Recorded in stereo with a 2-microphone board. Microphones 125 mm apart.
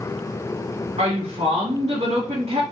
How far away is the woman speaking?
About 1.5 m.